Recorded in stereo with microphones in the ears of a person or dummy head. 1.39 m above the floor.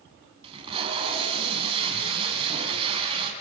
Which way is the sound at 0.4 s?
30° right (ahead or behind).